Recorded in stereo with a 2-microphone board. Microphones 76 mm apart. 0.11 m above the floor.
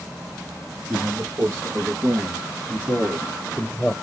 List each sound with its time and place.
0.9 s a man speaking: 45° right (ahead or behind), 3 m; by 3.9 s 10° right (ahead or behind), 2.5 m